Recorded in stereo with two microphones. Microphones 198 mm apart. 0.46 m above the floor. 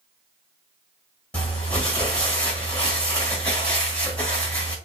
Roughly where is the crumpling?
Centre.